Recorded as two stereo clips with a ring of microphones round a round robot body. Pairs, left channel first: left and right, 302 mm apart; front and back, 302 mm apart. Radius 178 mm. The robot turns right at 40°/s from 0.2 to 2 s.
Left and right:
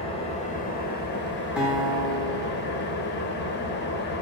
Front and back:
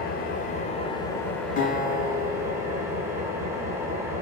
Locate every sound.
0.0 s an engine running: 35° left, 0.8 m; by 4.2 s 105° left, 0.8 m
1.6 s a guitar: 10° right, 1.2 m; by 3.4 s 10° left, 1.2 m